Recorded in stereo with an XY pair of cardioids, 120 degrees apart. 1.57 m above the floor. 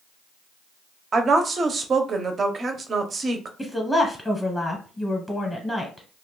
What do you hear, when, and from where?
1.1 s a woman speaking: 35° right, 0.7 m
3.6 s a woman speaking: 5° left, 0.9 m